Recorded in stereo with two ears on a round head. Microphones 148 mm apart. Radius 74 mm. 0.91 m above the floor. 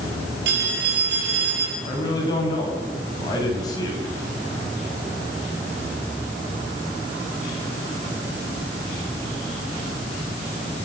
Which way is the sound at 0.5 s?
75° right (ahead or behind).